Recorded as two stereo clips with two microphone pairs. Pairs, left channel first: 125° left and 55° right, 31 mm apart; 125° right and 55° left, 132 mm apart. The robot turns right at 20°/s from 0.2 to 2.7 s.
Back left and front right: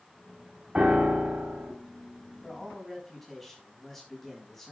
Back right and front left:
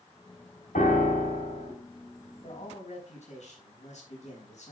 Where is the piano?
115° right, 3 m; by 1.7 s 95° right, 3 m.